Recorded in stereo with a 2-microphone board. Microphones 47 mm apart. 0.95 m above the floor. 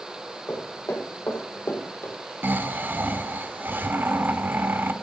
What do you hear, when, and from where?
0.5 s footsteps: 65° left (ahead or behind), 2.5 m; by 2.2 s 50° left (ahead or behind), 1.9 m
2.4 s snoring: 45° right (ahead or behind), 0.8 m